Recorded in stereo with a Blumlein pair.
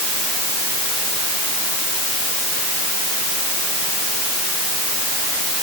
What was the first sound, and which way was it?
Only background noise.